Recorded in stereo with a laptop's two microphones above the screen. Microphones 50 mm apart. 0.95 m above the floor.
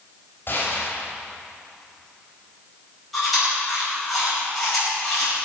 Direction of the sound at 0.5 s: 45° left (ahead or behind).